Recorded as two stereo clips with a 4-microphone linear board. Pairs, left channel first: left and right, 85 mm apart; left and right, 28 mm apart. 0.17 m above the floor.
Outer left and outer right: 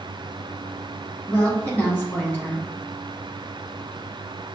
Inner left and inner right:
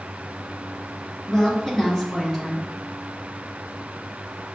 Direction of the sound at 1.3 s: 20° left (ahead or behind).